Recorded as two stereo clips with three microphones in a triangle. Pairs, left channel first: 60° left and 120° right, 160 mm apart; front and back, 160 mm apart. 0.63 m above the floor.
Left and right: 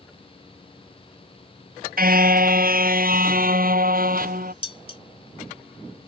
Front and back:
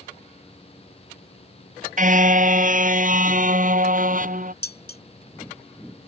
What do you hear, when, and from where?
2.0 s a car horn: 145° right
4.6 s dishes clattering: 5° left